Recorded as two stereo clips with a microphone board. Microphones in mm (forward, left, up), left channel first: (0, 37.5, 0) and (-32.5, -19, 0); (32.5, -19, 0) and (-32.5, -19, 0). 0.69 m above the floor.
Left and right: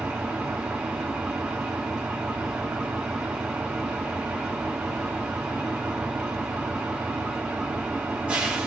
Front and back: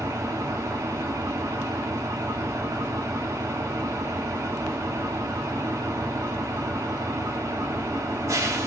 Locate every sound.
0.0 s an engine running: 175° left, 0.9 m